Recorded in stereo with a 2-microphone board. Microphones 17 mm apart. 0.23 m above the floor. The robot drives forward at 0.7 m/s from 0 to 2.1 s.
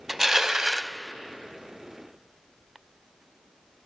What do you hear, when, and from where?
0.1 s crushing: 20° right (ahead or behind), 0.8 m; by 0.9 s 25° right (ahead or behind), 0.7 m